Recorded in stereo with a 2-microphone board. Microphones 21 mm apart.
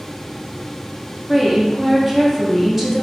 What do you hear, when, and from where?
1.3 s a woman speaking: 10° right (ahead or behind), 0.6 m